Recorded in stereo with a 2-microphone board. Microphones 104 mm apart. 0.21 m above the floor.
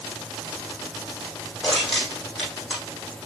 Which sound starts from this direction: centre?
Crushing, at 1.6 s.